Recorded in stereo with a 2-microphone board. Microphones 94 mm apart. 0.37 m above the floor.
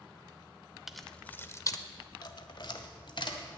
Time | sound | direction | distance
0.9 | keys jangling | 5° right (ahead or behind) | 0.7 m